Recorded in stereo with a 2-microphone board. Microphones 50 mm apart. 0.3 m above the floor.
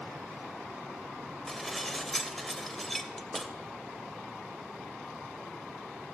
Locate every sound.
1.5 s dishes clattering: 5° left (ahead or behind), 0.7 m